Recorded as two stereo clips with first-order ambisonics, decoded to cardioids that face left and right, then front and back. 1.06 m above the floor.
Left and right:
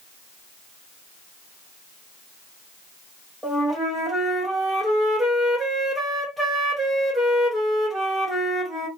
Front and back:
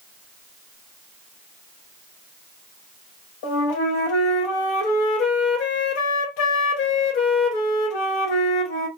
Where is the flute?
Straight ahead, 0.8 m.